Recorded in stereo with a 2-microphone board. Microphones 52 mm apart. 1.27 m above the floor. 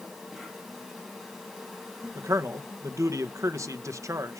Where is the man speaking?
70° right (ahead or behind), 1.2 m.